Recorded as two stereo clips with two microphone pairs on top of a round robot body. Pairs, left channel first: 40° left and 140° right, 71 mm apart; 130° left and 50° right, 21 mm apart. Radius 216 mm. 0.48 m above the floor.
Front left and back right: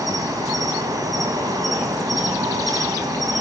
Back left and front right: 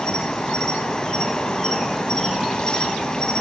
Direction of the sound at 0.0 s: 175° right.